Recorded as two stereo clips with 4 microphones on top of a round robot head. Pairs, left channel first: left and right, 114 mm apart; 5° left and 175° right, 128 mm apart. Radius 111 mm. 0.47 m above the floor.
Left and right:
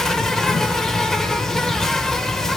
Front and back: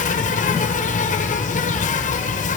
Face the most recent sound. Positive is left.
turn(degrees=5)